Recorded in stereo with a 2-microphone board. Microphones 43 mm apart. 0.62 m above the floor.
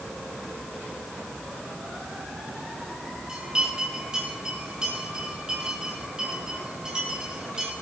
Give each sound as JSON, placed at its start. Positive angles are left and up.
{"t": 3.3, "sound": "a bell", "side_deg": -20, "distance_m": 6.0}